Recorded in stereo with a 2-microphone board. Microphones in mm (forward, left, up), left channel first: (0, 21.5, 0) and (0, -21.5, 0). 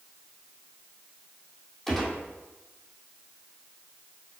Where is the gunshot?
5° left (ahead or behind), 2 m.